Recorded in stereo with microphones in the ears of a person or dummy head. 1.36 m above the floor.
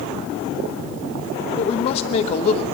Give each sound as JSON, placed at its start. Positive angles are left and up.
{"t": 1.6, "sound": "a woman speaking", "side_deg": 40, "distance_m": 1.0}